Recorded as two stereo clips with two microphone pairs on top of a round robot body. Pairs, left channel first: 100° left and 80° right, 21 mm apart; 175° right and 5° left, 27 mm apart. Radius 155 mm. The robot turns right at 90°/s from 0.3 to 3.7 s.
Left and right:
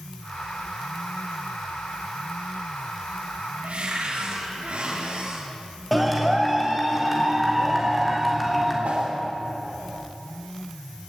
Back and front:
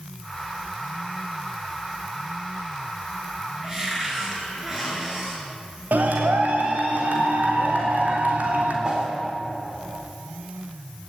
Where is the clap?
15° left, 3 m.